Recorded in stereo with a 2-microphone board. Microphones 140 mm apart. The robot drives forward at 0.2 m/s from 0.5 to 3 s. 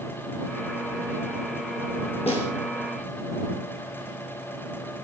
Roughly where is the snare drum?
Left.